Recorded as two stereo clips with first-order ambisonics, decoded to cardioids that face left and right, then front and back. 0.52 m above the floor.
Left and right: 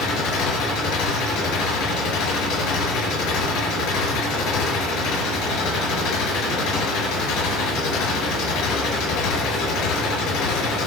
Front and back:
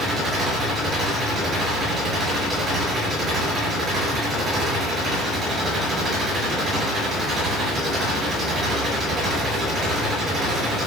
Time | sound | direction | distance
0.0 | an engine running | 115° left | 6.5 m